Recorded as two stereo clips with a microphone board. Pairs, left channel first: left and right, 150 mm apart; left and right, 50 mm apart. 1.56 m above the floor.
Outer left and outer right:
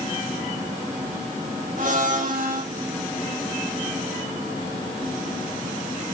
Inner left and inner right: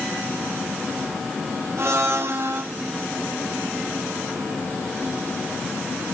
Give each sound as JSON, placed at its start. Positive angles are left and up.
{"t": 1.8, "sound": "a blender", "side_deg": -65, "distance_m": 4.0}